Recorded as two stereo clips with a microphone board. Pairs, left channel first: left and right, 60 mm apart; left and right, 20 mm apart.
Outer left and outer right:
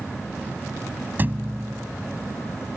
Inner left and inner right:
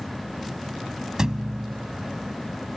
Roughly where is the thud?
Right.